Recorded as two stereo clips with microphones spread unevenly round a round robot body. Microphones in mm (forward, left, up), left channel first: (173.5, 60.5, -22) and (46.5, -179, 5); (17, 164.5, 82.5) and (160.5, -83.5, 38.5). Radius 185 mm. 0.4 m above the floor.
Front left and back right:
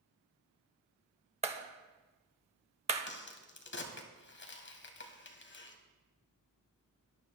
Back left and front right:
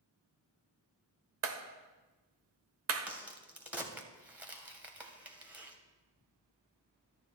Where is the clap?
50° right, 1.5 m.